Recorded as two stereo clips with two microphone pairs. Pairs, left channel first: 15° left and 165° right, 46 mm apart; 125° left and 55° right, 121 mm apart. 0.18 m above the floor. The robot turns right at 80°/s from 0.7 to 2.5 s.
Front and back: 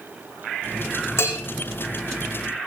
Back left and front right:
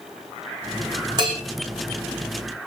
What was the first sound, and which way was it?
A bell, 5° right.